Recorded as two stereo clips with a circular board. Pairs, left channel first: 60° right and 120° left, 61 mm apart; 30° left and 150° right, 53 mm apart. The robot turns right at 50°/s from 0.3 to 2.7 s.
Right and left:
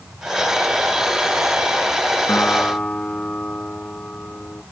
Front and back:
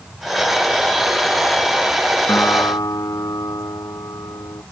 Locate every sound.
2.3 s a guitar: 10° right; by 4.6 s 10° left